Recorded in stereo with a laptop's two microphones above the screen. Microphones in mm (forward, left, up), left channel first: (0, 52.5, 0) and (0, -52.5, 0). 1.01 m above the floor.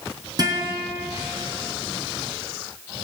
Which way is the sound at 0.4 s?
40° right (ahead or behind).